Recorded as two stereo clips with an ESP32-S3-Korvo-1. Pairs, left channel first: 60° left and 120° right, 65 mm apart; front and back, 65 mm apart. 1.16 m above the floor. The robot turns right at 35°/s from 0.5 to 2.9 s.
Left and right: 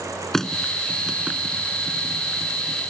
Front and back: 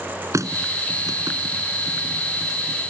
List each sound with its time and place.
0.3 s a running tap: 145° left; by 2.9 s 130° right